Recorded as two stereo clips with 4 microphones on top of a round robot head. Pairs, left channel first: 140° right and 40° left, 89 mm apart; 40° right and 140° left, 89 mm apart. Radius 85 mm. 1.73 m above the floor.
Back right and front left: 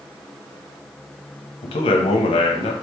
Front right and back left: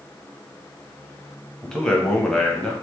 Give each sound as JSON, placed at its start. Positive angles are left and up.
{"t": 1.6, "sound": "a man speaking", "azimuth_deg": -125, "distance_m": 0.5}